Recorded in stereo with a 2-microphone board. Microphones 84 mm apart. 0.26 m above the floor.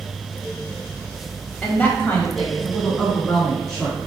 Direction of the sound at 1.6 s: 25° left (ahead or behind).